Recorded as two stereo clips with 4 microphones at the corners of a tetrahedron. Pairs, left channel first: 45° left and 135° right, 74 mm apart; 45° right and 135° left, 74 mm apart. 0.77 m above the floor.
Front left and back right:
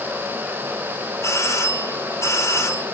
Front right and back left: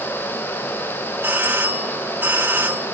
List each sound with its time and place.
1.2 s a doorbell: 80° left, 2 m